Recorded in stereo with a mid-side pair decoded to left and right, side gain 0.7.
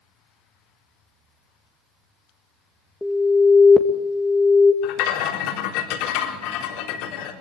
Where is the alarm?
5° left, 1.7 m.